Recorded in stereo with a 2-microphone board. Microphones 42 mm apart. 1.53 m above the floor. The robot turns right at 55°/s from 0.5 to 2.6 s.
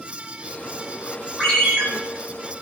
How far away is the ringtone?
About 3 m.